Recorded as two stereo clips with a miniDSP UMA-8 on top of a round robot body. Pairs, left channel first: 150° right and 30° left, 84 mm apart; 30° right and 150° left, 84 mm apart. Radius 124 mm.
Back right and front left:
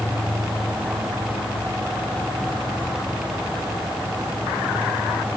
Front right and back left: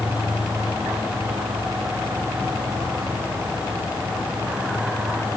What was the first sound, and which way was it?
Only background noise.